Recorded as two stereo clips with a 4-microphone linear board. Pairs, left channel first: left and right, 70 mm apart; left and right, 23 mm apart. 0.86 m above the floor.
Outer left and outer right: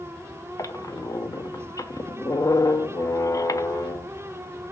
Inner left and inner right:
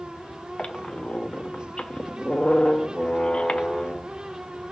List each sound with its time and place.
0.6 s a squeak: 55° left (ahead or behind), 0.6 m